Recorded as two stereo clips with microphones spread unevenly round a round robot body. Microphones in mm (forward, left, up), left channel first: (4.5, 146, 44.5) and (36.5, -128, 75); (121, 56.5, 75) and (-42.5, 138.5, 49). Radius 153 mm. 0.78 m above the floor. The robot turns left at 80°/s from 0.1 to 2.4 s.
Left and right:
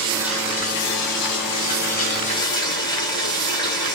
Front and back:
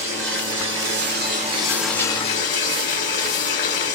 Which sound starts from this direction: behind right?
Running water, at 0.0 s.